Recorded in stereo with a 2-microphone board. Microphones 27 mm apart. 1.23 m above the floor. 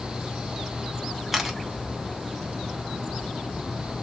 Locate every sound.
1.3 s a camera shutter: 5° right (ahead or behind), 0.9 m